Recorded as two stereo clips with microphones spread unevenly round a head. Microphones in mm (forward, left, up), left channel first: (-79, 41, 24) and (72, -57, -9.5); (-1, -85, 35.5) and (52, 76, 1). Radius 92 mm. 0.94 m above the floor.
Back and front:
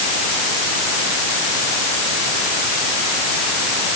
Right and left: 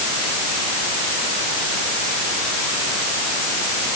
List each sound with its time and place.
Only background noise.